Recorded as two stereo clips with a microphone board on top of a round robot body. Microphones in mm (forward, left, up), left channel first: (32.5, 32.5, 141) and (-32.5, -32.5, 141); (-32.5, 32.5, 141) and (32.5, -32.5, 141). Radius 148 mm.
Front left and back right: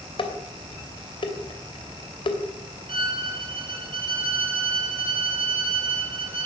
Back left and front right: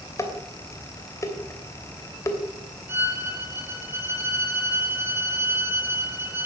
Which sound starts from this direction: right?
A violin, at 2.9 s.